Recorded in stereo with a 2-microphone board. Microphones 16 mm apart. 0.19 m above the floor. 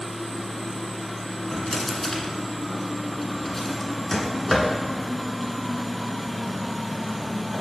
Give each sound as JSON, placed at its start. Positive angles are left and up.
{"t": 1.5, "sound": "a drawer", "side_deg": 15, "distance_m": 1.2}